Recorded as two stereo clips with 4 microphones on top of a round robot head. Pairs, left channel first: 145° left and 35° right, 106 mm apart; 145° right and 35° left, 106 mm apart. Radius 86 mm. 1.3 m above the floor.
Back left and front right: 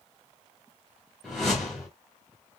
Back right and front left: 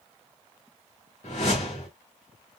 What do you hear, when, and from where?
1.2 s a whoosh: 125° right, 1.3 m